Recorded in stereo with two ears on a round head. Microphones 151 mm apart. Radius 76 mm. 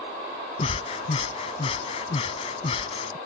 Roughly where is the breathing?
Left.